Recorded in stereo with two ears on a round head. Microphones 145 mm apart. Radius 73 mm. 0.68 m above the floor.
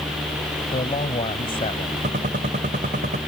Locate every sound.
0.7 s a man speaking: 35° left (ahead or behind)
2.0 s a gunshot: 50° right (ahead or behind)